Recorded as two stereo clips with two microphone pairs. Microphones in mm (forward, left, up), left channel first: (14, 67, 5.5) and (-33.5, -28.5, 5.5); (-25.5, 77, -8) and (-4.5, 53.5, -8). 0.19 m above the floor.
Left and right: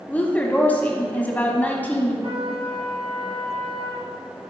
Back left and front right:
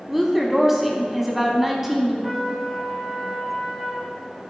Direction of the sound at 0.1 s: 30° left.